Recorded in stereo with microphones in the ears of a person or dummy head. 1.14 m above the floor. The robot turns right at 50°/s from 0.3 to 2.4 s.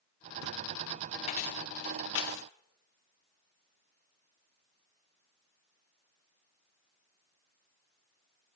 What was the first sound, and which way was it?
Keys jangling, 40° left (ahead or behind).